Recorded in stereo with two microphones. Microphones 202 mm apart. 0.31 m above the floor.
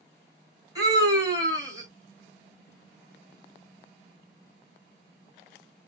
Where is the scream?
20° right (ahead or behind), 2 m.